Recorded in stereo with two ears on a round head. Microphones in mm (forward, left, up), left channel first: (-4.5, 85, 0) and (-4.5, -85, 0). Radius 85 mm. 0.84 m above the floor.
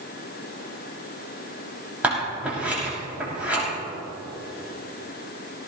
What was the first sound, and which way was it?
Scissors, 5° right (ahead or behind).